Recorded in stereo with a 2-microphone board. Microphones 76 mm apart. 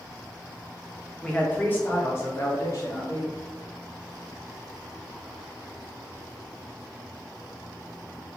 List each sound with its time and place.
1.2 s a man speaking: 10° left (ahead or behind), 1.0 m; by 3.3 s 45° left (ahead or behind), 1.9 m